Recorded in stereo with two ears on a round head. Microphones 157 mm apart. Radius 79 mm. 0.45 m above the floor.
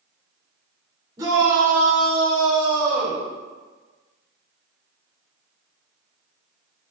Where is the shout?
20° right (ahead or behind), 1.7 m; by 3.2 s 45° right (ahead or behind), 2 m.